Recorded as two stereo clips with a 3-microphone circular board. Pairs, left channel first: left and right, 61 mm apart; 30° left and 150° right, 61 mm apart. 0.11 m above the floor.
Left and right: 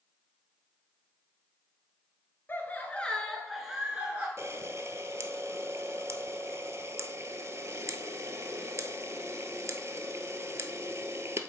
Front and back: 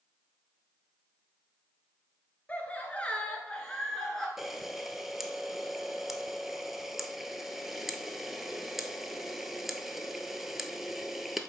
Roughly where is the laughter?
Left.